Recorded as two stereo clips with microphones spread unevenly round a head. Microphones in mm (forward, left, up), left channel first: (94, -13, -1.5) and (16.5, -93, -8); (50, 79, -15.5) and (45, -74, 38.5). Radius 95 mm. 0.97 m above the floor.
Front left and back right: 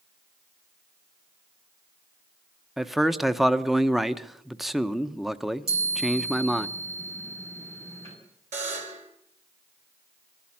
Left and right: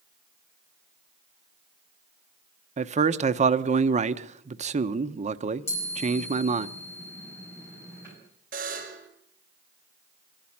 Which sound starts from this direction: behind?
A chime, at 5.7 s.